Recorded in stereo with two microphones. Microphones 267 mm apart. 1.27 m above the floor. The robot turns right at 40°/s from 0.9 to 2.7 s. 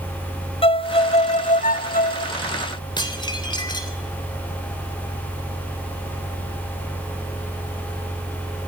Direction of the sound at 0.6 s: 40° left.